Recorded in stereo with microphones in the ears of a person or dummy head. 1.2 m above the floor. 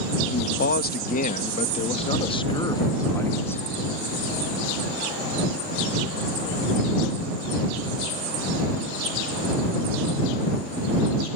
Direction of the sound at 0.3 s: 55° left (ahead or behind).